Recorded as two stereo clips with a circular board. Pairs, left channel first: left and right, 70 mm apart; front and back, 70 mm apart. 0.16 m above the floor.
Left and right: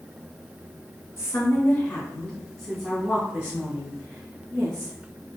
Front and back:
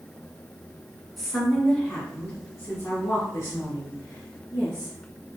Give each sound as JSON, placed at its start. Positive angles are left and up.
{"t": 1.2, "sound": "a woman speaking", "azimuth_deg": 90, "distance_m": 1.7}